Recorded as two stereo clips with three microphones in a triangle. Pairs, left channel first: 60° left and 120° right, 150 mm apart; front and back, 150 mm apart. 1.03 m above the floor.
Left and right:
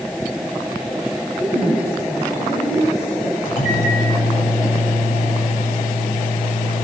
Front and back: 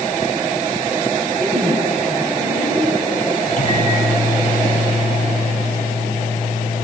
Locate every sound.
1.4 s a woman speaking: 110° left, 6.5 m
3.5 s a microwave: 35° left, 8 m